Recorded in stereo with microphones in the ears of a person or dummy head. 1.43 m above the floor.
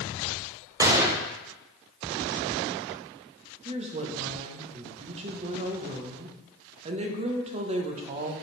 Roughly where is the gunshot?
Right.